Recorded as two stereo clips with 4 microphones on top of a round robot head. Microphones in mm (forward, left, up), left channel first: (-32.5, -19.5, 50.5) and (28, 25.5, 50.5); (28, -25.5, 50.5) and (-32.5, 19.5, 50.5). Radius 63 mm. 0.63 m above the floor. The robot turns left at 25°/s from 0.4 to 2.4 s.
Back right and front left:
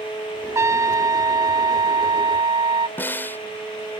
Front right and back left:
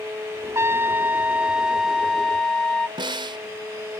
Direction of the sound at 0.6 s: 90° left.